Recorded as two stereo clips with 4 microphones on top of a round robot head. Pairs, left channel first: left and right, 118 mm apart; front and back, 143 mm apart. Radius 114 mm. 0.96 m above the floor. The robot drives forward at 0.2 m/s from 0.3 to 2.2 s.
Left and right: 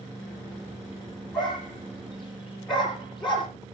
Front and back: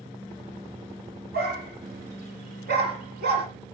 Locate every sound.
1.3 s a dog barking: straight behind, 6 m